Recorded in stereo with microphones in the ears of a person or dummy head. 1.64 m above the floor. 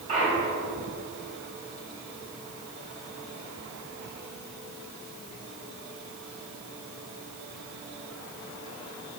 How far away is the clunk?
About 3 m.